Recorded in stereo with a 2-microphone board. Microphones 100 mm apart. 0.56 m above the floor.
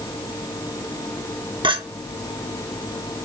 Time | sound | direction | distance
1.6 | a clink | 50° right (ahead or behind) | 0.8 m